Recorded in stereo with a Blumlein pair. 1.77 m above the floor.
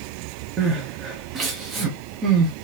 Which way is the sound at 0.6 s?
25° right.